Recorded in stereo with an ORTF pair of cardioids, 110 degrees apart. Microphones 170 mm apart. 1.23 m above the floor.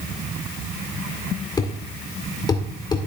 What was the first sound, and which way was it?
A thud, 25° left.